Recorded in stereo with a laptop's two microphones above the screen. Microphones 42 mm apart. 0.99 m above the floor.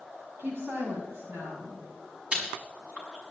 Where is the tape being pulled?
No tape being pulled in this recording.